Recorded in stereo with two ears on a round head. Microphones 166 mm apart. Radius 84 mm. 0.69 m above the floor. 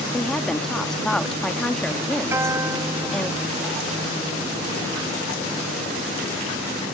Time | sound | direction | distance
0.1 | a woman speaking | 5° left (ahead or behind) | ?
2.3 | a guitar | 15° right (ahead or behind) | ?